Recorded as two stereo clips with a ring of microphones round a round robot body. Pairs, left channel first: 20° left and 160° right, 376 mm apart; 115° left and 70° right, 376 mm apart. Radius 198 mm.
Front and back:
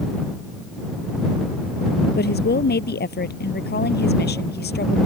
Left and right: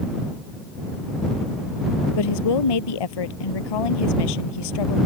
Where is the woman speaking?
90° left.